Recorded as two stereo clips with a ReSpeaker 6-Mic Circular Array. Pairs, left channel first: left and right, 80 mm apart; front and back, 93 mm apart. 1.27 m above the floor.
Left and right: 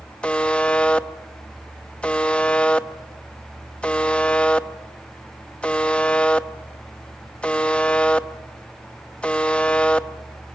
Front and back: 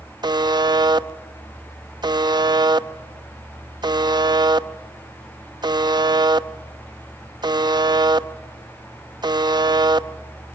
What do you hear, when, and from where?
0.2 s a buzzer: 160° left, 0.8 m